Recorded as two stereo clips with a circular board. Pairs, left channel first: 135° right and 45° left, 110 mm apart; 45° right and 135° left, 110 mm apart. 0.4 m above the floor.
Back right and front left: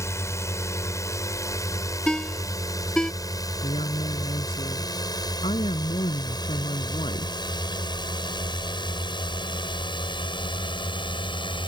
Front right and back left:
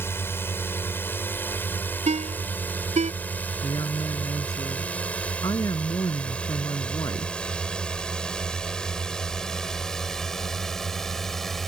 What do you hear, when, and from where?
0.0 s a drone: 95° right; by 11.7 s 130° right
2.1 s a ringtone: 140° left
3.6 s a woman speaking: 100° right